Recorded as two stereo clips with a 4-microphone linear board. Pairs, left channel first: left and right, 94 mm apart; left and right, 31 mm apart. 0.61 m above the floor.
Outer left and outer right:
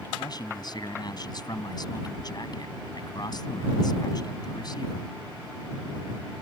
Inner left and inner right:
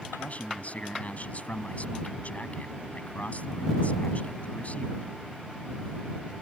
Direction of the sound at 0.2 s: 50° left (ahead or behind).